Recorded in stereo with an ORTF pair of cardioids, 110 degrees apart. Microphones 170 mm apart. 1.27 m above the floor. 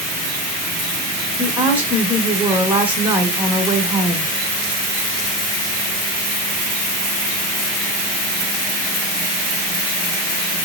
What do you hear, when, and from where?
1.4 s a woman speaking: 10° right, 1.3 m